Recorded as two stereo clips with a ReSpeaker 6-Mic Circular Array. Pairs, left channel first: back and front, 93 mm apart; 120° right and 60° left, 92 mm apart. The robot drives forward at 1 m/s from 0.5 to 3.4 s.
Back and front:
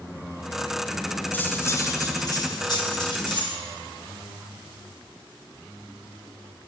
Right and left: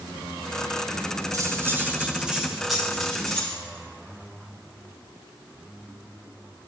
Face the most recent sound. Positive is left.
turn(degrees=155)